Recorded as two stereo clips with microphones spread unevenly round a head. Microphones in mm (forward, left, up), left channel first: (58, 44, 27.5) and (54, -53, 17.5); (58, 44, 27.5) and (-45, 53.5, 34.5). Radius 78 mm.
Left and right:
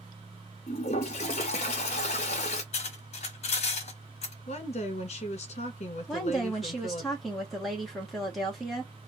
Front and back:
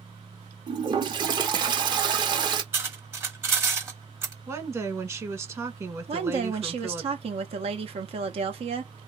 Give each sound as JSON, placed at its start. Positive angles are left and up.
{"t": 0.7, "sound": "a toilet flushing", "azimuth_deg": 125, "distance_m": 0.8}
{"t": 2.7, "sound": "cutlery clinking", "azimuth_deg": 110, "distance_m": 0.9}
{"t": 4.5, "sound": "a woman speaking", "azimuth_deg": 110, "distance_m": 1.2}
{"t": 6.1, "sound": "a woman speaking", "azimuth_deg": 180, "distance_m": 1.0}